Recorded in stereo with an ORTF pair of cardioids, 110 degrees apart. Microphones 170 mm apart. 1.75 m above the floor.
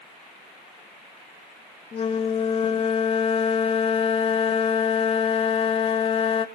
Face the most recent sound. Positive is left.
turn(degrees=35)